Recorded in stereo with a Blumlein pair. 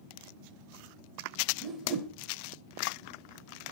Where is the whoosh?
15° right, 1.1 m.